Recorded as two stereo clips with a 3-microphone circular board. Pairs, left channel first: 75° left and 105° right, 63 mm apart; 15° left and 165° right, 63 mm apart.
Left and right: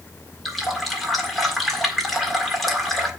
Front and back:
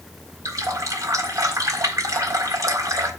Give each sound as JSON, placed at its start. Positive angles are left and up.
{"t": 0.5, "sound": "a running tap", "azimuth_deg": 165, "distance_m": 1.6}